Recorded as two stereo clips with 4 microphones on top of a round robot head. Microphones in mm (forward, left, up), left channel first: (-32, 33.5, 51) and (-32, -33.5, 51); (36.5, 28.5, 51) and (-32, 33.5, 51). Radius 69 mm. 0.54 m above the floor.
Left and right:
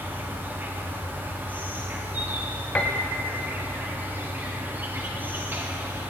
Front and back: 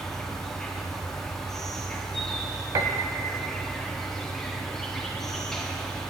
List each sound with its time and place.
0.0 s an insect: 80° right, 0.9 m
2.8 s a piano: 155° left, 0.5 m